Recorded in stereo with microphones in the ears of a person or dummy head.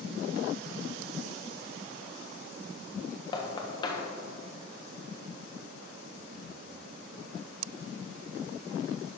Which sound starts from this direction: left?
Knocking, at 3.3 s.